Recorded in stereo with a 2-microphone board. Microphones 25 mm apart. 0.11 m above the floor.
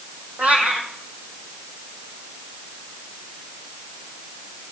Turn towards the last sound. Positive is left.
turn(degrees=-75)  # may be behind; listen again after turning